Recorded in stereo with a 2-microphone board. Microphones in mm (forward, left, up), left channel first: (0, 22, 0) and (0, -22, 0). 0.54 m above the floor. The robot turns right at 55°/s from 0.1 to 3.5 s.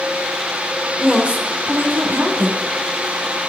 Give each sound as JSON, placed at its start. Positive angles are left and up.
{"t": 1.0, "sound": "a woman speaking", "azimuth_deg": -160, "distance_m": 2.0}